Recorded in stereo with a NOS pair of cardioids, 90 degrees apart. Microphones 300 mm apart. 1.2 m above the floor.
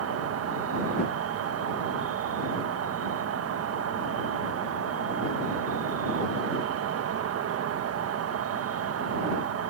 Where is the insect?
50° right.